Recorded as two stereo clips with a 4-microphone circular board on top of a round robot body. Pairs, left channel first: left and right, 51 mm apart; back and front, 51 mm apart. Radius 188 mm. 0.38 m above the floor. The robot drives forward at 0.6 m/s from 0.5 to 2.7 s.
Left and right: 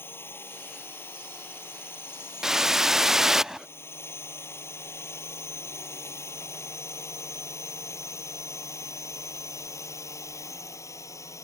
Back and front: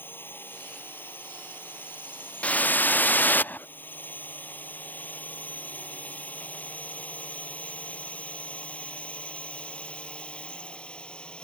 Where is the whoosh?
160° right; by 3.7 s 165° right.